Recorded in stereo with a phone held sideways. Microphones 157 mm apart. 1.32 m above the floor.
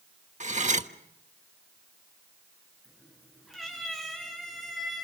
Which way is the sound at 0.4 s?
45° right (ahead or behind).